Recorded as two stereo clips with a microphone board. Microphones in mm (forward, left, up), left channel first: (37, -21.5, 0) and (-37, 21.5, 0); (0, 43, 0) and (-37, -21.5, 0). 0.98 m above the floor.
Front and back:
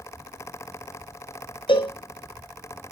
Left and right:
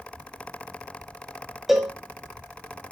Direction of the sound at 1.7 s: 35° right.